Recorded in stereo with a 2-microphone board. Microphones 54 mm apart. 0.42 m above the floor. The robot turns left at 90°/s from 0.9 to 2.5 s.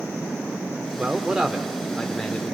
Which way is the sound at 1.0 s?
20° right (ahead or behind).